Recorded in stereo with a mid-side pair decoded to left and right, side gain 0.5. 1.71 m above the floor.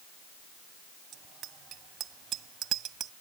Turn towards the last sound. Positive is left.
turn(degrees=-65)